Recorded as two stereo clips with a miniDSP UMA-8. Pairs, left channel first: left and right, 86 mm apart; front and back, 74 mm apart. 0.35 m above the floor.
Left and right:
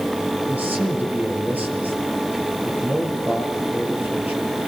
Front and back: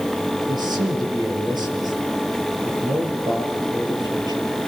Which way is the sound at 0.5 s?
160° right.